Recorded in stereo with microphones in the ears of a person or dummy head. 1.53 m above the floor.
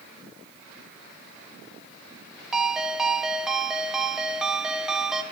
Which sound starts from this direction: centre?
A ringtone, at 2.5 s.